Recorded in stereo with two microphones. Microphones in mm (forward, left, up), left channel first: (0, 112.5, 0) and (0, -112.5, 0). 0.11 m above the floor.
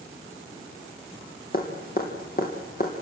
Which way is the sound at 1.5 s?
40° left (ahead or behind).